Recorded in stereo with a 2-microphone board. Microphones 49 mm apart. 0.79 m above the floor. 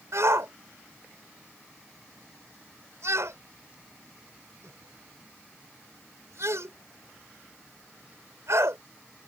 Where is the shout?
75° right (ahead or behind).